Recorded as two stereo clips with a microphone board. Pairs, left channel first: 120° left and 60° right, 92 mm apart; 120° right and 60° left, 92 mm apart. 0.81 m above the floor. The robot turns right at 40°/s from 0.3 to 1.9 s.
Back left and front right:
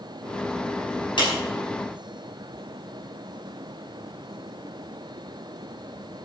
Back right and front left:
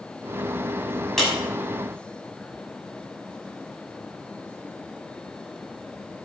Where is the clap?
155° left, 5.5 m; by 1.3 s 160° left, 5.5 m.